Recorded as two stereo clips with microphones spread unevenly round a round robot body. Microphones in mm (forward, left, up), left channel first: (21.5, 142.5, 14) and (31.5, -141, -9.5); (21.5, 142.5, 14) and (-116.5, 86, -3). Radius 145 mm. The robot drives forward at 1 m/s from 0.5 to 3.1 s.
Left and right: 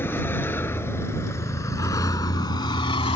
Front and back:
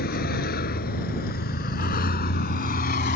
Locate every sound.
0.0 s a vehicle: 10° left; by 3.2 s 20° left